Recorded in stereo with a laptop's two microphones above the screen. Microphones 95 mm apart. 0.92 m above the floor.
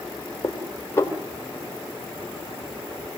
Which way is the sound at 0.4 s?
25° left (ahead or behind).